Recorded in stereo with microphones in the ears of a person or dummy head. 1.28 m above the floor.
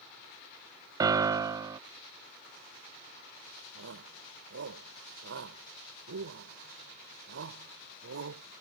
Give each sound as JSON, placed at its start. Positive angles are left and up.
{"t": 1.0, "sound": "a piano", "side_deg": -15}
{"t": 3.8, "sound": "a shout", "side_deg": -80}